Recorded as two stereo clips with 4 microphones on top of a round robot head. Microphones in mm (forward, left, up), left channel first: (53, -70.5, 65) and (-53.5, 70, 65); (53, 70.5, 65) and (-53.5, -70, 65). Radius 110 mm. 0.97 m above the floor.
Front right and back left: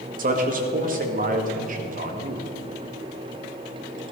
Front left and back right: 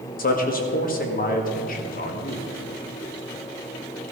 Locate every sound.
0.2 s a man speaking: 90° left, 1.8 m